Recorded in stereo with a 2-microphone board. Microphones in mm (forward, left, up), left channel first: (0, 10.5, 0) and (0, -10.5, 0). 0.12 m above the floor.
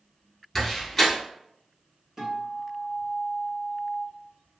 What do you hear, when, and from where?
0.6 s a door slam: 5° left (ahead or behind), 1.1 m
2.2 s a guitar: 15° right (ahead or behind), 1.4 m